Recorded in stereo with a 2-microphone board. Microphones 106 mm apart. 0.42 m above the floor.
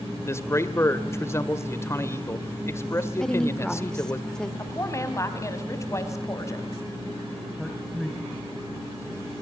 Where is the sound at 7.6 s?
Centre (ahead or behind), 2.5 m.